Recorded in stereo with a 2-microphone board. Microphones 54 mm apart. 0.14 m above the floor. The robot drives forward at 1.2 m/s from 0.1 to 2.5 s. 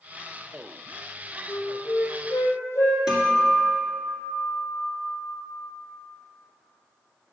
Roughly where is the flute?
Left.